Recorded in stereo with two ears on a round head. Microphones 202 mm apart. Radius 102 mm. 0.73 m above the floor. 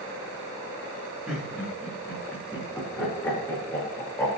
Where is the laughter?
Centre (ahead or behind), 4 m; by 4.3 s 10° left (ahead or behind), 5 m.